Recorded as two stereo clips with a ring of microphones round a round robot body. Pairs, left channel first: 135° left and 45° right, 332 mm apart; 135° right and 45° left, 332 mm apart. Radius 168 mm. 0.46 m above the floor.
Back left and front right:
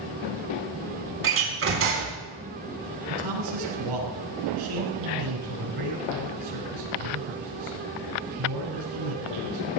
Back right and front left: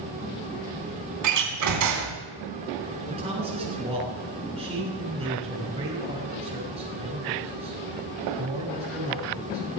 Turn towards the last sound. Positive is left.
turn(degrees=-30)